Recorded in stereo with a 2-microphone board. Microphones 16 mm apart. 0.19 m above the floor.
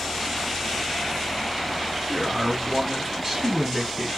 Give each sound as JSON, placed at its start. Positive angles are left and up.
{"t": 2.1, "sound": "a man speaking", "side_deg": -20, "distance_m": 1.8}